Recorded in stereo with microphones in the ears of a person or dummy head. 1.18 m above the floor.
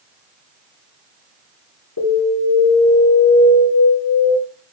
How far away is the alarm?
About 5 m.